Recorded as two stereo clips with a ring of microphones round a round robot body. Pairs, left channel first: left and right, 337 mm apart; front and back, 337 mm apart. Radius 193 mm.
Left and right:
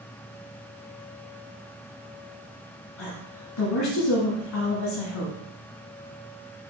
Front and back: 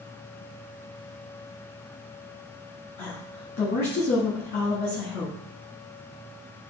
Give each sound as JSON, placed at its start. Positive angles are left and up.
{"t": 3.0, "sound": "a woman speaking", "azimuth_deg": 60, "distance_m": 1.4}